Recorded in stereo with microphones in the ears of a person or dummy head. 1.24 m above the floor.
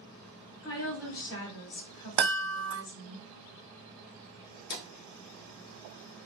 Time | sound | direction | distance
0.6 | a woman speaking | 65° left (ahead or behind) | 1.3 m
2.2 | a chime | 65° right (ahead or behind) | 0.8 m
4.7 | a drawer | 55° left (ahead or behind) | 0.9 m